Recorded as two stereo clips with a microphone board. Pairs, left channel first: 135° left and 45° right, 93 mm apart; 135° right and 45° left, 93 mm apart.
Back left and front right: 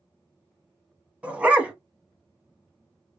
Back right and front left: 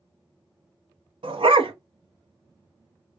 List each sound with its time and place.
1.2 s a dog barking: 30° left, 0.9 m